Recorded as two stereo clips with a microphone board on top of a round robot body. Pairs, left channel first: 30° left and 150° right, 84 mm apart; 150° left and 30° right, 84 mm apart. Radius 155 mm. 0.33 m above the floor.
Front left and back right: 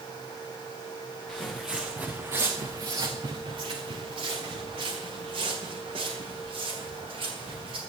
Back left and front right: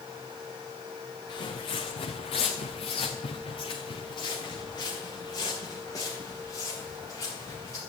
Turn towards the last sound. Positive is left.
turn(degrees=-150)